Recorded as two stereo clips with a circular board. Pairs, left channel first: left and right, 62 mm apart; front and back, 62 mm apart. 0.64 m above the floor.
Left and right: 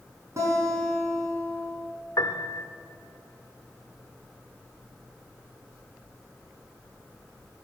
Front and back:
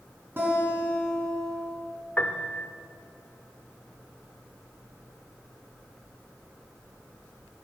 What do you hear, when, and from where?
0.4 s a guitar: 125° right, 5 m
2.2 s a piano: 65° left, 0.9 m